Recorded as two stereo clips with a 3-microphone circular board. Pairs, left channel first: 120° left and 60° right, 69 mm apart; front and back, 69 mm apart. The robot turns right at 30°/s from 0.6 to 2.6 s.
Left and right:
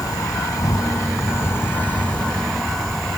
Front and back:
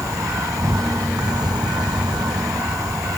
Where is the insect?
145° left; by 3.2 s 155° right.